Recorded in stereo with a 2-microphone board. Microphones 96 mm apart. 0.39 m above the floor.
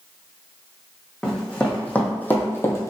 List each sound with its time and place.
1.2 s running footsteps: 10° left (ahead or behind), 1.3 m; by 2.9 s 35° left (ahead or behind), 0.6 m